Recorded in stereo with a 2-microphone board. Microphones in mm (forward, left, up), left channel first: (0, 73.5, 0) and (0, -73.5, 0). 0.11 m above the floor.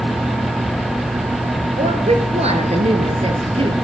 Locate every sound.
1.8 s a woman speaking: 45° right (ahead or behind), 1.5 m; by 3.7 s 35° right (ahead or behind), 1.8 m